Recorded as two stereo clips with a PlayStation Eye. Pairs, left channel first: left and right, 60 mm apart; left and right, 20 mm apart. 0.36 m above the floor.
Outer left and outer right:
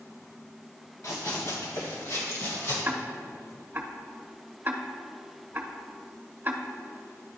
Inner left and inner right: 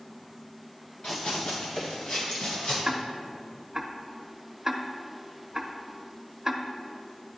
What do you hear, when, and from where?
1.0 s running footsteps: 60° left (ahead or behind), 1.6 m; by 2.8 s 50° left (ahead or behind), 3 m
2.9 s ticking: 35° right (ahead or behind), 0.6 m